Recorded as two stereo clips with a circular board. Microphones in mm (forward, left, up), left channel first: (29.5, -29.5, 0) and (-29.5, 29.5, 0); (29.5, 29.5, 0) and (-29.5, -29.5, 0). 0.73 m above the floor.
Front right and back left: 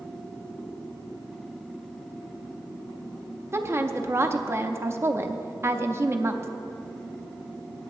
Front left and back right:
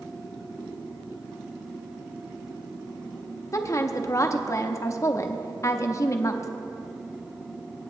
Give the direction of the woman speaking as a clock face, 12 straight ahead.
9 o'clock.